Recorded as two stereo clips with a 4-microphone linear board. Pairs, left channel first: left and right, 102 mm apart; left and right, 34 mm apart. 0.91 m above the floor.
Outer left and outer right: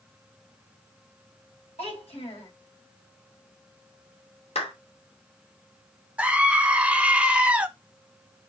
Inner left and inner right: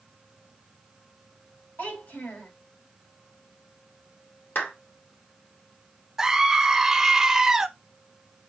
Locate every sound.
1.8 s a child speaking: 80° left, 4 m
4.5 s a clap: 80° left, 3 m
6.2 s a scream: 10° right (ahead or behind), 0.8 m